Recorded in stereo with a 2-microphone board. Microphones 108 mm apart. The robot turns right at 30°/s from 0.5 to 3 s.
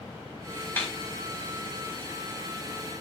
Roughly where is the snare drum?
Centre.